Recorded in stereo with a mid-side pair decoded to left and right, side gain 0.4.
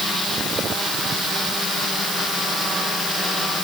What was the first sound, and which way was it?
Only background noise.